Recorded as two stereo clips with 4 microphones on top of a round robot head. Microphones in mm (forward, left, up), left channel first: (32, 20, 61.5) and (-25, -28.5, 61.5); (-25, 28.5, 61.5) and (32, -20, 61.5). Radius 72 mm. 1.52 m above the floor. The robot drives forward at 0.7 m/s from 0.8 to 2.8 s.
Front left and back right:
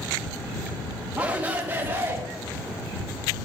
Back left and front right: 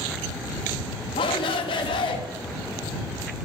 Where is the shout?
145° left, 1.5 m; by 2.2 s 155° left, 2 m.